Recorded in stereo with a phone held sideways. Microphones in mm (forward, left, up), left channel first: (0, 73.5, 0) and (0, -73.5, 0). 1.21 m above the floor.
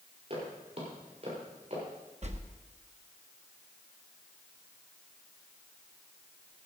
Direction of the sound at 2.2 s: 50° right (ahead or behind).